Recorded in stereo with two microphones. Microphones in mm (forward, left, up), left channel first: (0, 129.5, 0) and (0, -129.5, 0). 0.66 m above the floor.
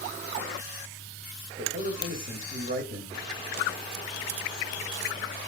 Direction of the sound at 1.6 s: 35° right (ahead or behind).